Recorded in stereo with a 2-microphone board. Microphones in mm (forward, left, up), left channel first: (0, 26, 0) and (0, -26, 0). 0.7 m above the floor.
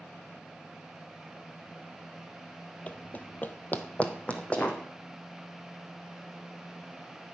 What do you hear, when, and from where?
2.9 s running footsteps: 25° left (ahead or behind), 0.8 m